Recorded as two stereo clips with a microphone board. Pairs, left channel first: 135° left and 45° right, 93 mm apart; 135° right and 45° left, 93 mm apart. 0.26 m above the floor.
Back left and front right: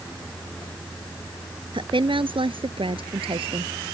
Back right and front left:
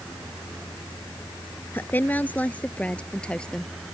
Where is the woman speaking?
65° right; by 3.7 s 55° right.